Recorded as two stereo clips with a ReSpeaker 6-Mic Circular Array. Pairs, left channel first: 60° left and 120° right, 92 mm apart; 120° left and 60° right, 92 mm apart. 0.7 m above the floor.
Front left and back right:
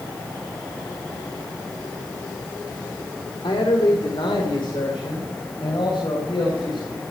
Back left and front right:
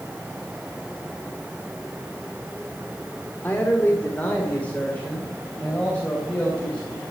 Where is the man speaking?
55° left, 1.7 m; by 7.0 s 45° left, 3.5 m.